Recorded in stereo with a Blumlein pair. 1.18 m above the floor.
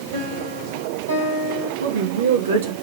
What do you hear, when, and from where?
0.1 s a piano: 70° right, 4 m
1.8 s a woman speaking: 65° right, 1.7 m